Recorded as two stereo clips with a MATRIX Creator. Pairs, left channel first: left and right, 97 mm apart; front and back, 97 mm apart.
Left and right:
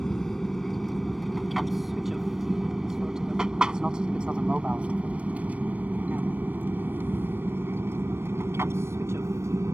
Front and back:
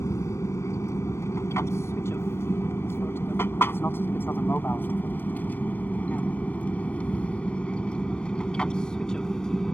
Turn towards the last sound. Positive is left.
turn(degrees=-80)